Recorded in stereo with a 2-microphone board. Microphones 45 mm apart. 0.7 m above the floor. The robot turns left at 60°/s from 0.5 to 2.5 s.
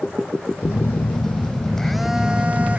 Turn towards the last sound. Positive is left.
turn(degrees=-35)